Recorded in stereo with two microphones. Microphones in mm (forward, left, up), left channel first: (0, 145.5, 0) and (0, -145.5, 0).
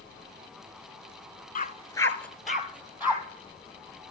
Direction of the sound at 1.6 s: 30° left (ahead or behind).